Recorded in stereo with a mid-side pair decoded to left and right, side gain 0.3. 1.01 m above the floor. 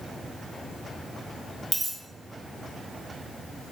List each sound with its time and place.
1.7 s a dropped coin: 55° right, 1.1 m